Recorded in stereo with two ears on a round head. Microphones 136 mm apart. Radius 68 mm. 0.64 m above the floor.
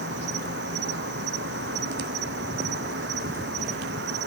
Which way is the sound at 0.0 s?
85° right.